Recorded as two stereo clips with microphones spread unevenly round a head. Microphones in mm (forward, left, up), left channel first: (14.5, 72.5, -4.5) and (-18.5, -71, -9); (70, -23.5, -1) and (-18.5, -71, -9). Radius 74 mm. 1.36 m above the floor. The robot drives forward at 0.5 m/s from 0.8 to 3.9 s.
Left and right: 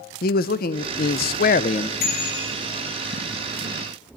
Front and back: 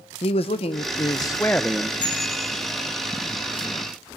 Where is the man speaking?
60° left, 0.5 m; by 1.9 s 125° left, 0.5 m.